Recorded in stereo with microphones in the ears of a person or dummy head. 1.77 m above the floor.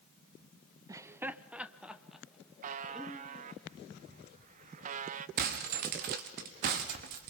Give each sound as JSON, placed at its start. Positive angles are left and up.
{"t": 0.9, "sound": "laughter", "side_deg": -25, "distance_m": 0.7}
{"t": 2.6, "sound": "a buzzer", "side_deg": -50, "distance_m": 0.7}
{"t": 5.4, "sound": "breaking glass", "side_deg": -50, "distance_m": 1.7}